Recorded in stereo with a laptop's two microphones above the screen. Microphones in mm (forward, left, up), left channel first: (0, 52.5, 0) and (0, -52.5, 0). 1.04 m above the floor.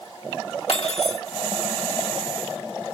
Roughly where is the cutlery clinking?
Left.